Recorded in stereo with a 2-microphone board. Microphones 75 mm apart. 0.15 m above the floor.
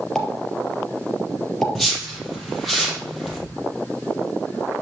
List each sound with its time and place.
0.1 s a pop: 5° left (ahead or behind), 3.5 m
1.8 s a whoosh: 5° left (ahead or behind), 4 m